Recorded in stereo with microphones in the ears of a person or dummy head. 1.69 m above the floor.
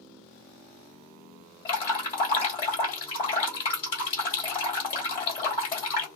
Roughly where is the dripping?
Left.